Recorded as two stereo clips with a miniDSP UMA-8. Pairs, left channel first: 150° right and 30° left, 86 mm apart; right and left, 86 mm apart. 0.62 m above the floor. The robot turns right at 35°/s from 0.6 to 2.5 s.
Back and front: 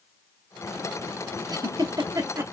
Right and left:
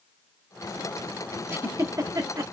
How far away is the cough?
No cough in this recording.